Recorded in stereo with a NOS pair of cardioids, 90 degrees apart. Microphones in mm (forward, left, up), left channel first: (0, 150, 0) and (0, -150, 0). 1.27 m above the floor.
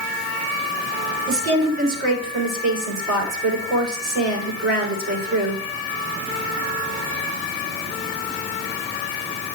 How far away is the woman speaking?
About 3.5 m.